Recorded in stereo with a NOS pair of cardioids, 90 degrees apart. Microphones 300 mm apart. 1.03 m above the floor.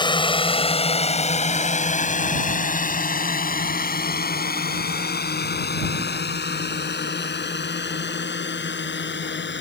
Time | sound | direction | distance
0.0 | a drone | 15° left | ?